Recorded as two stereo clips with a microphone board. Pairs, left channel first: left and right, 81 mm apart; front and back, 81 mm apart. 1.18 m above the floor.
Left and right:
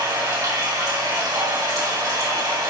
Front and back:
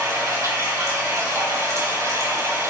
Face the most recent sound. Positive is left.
turn(degrees=-130)